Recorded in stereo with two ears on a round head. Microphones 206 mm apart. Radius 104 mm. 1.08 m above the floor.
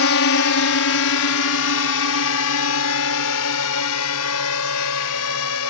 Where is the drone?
65° left (ahead or behind); by 5.7 s 80° left.